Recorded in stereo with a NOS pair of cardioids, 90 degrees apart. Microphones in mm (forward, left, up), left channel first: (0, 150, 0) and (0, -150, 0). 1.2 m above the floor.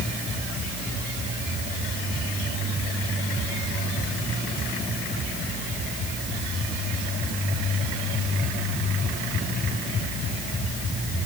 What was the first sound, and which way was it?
Only background noise.